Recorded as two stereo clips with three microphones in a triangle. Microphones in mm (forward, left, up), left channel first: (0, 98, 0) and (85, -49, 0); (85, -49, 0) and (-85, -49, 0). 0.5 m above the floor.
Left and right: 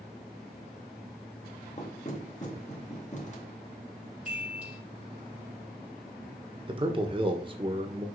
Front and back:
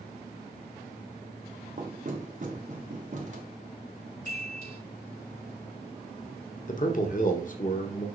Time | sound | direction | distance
1.8 | knocking | 150° left | 1.8 m
4.2 | a chime | 20° left | 5 m
6.7 | a man speaking | 10° right | 1.4 m